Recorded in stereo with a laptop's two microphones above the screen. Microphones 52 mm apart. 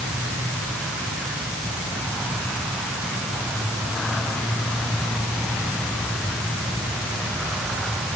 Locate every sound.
Only background noise.